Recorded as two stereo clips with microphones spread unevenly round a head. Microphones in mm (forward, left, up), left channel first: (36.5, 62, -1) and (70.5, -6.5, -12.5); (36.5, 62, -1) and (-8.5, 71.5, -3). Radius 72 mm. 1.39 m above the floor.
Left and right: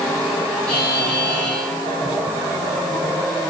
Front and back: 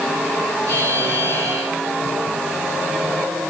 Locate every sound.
0.7 s a buzzer: 160° right, 6.5 m